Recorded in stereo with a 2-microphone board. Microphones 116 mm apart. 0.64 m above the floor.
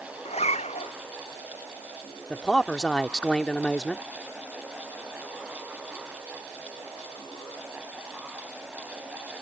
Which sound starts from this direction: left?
A zipper, at 0.2 s.